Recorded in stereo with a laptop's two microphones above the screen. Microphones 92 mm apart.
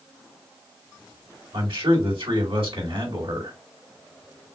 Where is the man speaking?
75° right (ahead or behind), 3.5 m.